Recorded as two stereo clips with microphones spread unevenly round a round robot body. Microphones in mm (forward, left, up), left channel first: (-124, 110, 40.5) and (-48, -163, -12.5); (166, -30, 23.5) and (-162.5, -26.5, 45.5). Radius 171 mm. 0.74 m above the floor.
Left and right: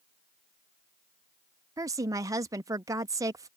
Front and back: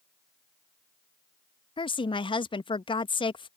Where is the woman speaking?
45° right.